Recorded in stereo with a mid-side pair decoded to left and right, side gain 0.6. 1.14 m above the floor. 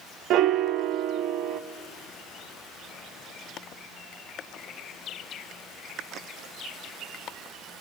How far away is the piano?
About 1.2 m.